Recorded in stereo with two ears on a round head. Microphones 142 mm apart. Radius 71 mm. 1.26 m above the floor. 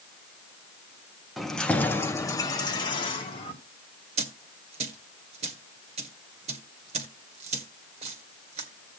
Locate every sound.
1.4 s keys jangling: centre (ahead or behind), 1.0 m; by 3.5 s 35° left (ahead or behind), 2.0 m
4.2 s a dropped coin: 40° right (ahead or behind), 1.6 m